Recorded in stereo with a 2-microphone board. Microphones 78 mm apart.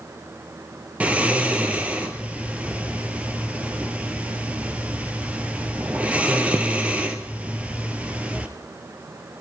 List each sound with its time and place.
1.0 s snoring: 15° right (ahead or behind), 1.3 m